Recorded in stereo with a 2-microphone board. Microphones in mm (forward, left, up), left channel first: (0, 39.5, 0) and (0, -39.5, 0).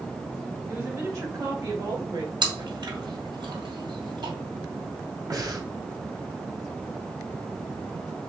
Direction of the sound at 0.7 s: 30° right (ahead or behind).